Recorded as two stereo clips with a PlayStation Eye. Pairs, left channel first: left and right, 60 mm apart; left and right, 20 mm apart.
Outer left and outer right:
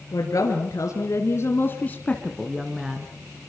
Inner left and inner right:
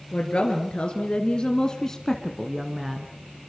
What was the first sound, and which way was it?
A woman speaking, 70° left (ahead or behind).